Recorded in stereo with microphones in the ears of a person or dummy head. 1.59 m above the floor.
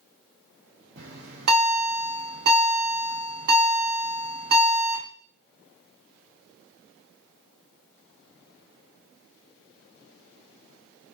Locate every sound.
1.0 s a bell: 60° right (ahead or behind), 1.0 m